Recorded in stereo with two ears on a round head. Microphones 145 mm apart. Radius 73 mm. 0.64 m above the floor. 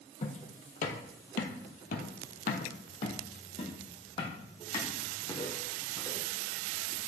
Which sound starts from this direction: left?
Footsteps, at 0.2 s.